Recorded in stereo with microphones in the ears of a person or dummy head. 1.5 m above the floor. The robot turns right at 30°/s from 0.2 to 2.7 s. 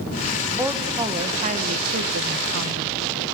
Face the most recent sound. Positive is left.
turn(degrees=-105)